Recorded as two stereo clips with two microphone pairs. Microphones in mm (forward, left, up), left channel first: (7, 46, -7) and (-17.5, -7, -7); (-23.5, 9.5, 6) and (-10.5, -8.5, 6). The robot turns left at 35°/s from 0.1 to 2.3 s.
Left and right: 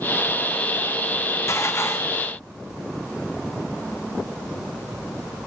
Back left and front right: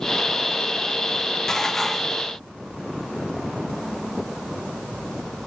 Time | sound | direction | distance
1.5 | dishes clattering | 65° left | 0.6 m